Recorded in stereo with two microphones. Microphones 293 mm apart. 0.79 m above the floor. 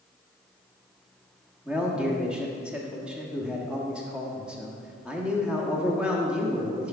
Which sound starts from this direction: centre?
A man speaking, at 1.6 s.